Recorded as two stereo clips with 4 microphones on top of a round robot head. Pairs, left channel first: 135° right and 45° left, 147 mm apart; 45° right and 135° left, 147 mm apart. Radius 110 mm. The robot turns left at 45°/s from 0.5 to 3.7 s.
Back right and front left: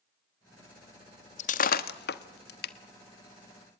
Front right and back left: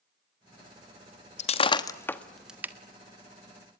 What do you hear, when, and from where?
1.4 s breaking glass: 90° right, 1.1 m; by 2.7 s 150° right, 1.1 m